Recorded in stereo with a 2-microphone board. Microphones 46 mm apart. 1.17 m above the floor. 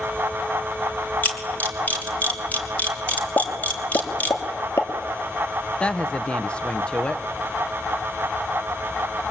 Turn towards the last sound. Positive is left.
turn(degrees=20)  # may be behind; listen again after turning